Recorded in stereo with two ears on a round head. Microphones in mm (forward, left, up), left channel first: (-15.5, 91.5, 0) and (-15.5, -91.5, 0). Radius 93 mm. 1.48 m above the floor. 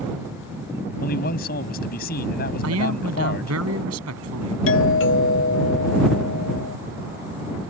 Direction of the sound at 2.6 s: 75° right (ahead or behind).